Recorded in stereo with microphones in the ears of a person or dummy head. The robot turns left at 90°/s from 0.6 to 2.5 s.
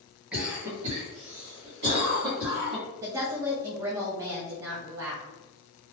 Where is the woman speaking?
15° right (ahead or behind), 0.5 m.